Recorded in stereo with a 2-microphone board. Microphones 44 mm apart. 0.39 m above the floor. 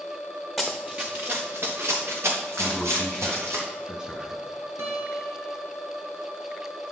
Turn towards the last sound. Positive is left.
turn(degrees=-85)